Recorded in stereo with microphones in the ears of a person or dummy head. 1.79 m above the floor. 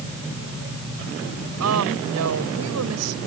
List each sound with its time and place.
1.6 s a woman speaking: 85° right